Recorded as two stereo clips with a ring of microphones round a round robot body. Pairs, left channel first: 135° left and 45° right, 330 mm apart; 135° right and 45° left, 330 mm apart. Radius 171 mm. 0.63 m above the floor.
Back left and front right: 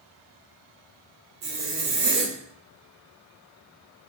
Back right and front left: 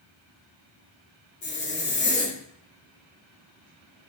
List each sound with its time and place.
1.4 s a zipper: 75° right, 0.8 m